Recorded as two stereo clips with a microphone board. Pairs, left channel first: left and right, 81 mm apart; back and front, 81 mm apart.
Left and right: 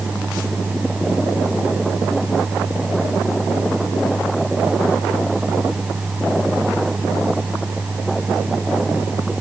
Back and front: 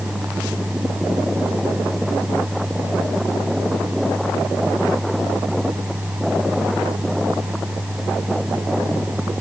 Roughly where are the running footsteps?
No running footsteps in this recording.